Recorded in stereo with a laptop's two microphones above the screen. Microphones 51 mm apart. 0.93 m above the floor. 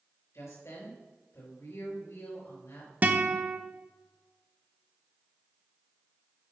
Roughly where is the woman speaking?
Left.